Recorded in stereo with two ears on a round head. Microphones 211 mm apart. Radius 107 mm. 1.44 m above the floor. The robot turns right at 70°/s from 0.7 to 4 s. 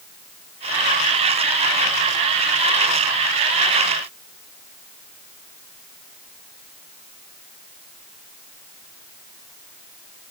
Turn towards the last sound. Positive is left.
No sound to turn to.